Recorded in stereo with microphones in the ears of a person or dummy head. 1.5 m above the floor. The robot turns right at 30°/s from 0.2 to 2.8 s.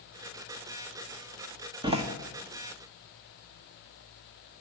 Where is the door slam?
25° right (ahead or behind), 1.3 m; by 2.0 s 30° right (ahead or behind), 1.3 m.